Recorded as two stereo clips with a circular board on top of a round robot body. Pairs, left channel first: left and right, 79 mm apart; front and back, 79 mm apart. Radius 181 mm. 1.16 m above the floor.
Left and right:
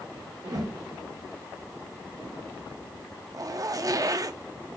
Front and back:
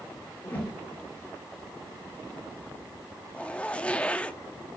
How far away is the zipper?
About 0.8 m.